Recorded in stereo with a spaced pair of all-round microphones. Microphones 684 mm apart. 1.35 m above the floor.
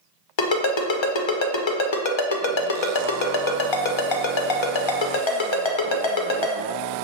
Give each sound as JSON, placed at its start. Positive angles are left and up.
{"t": 0.4, "sound": "a ringtone", "side_deg": 45, "distance_m": 0.5}